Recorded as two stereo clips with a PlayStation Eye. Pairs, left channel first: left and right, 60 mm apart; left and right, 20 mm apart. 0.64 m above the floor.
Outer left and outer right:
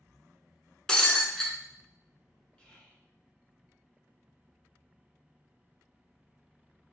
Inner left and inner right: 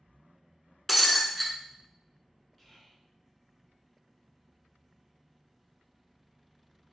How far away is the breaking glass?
About 0.7 m.